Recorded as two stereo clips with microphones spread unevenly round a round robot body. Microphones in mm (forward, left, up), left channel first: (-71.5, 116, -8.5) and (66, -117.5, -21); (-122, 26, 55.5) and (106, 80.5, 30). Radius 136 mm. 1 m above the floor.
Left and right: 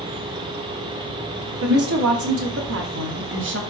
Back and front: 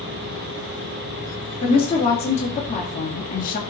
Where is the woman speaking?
95° right, 3 m; by 3.6 s 105° right, 2.0 m.